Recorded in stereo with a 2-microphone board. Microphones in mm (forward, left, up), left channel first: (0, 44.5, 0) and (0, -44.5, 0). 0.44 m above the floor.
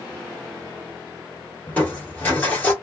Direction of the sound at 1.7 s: 15° left (ahead or behind).